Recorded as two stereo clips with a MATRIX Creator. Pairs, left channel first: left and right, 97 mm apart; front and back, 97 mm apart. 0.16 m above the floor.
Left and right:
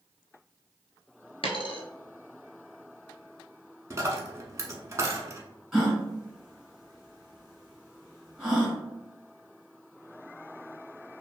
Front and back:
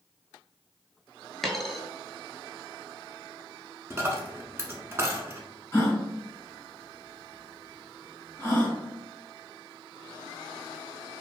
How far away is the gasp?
About 1.5 m.